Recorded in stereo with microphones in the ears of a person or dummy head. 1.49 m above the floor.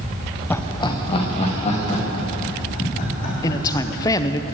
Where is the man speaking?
20° left (ahead or behind), 0.7 m.